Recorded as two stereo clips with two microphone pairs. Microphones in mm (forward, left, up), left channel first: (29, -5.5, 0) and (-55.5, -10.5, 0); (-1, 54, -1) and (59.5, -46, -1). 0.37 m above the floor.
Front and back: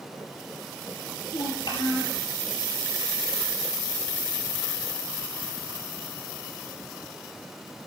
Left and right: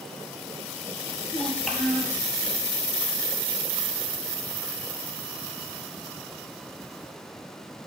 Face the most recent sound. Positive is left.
turn(degrees=40)